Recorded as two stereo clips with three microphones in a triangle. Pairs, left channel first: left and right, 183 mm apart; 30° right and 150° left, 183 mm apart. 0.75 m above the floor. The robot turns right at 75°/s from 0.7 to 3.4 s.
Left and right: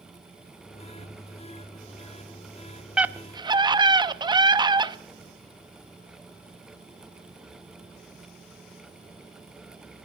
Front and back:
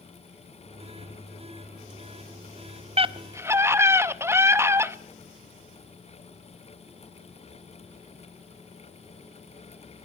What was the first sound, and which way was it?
A scream, 175° right.